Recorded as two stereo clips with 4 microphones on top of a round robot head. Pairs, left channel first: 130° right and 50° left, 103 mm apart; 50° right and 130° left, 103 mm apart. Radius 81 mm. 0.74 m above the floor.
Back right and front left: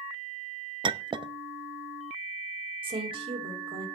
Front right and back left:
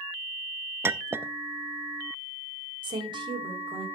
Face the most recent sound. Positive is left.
turn(degrees=85)